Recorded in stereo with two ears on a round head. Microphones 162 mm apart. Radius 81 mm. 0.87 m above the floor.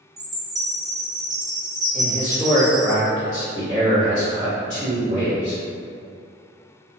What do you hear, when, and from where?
0.2 s a chime: 20° right (ahead or behind), 0.5 m
1.9 s a man speaking: 45° left (ahead or behind), 1.9 m